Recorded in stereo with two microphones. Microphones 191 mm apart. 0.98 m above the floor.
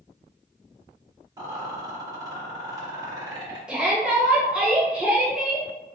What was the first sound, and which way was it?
A rattle, 25° right (ahead or behind).